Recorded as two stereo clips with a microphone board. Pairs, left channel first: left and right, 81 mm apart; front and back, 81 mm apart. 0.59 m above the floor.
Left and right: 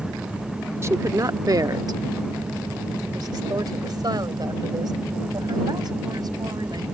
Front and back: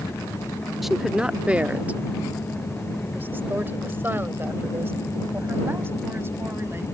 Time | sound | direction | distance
0.8 | a woman speaking | 95° right | ?